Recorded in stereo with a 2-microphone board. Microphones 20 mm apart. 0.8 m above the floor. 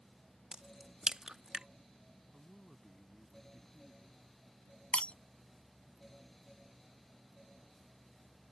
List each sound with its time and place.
0.5 s a crack: 45° right (ahead or behind)
2.3 s a man speaking: 10° left (ahead or behind)
4.9 s breaking glass: 80° left